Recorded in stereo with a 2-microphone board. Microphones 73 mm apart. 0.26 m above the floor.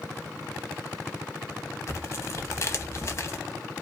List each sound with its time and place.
1.9 s tearing paper: 40° left (ahead or behind), 0.6 m